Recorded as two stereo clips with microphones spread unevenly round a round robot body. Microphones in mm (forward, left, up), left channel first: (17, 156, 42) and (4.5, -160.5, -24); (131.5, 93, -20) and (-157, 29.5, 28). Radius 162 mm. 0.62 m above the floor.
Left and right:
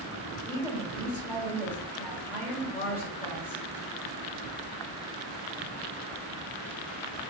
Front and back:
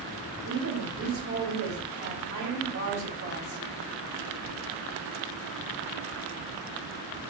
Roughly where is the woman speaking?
Behind.